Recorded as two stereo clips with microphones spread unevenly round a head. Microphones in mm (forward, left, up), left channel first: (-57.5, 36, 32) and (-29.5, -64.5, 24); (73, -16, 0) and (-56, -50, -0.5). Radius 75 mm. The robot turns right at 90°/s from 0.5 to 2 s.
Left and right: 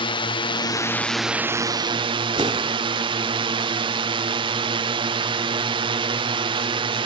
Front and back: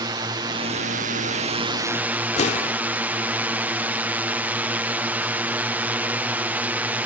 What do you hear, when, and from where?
0.0 s a drone: 135° left; by 7.0 s 90° right
2.4 s an explosion: 15° right